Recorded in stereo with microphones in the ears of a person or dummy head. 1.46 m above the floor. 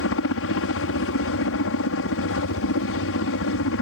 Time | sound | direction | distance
0.0 | a helicopter | 70° left (ahead or behind) | ?